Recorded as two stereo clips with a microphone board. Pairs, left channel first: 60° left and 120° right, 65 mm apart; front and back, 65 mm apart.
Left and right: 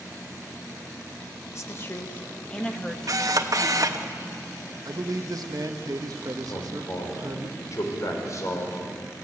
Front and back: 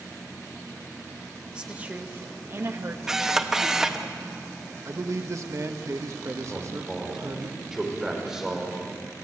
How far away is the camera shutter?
About 1.2 m.